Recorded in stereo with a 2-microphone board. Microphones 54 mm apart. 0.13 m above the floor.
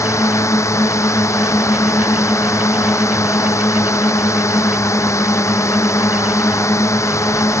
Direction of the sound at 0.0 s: 70° left (ahead or behind).